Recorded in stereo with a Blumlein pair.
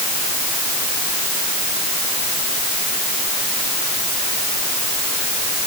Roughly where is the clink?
I don't hear a clink.